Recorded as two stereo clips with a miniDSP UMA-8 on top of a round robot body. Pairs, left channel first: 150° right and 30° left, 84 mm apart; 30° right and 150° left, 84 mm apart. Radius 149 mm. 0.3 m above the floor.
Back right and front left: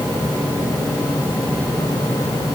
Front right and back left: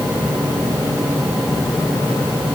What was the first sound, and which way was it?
Only background noise.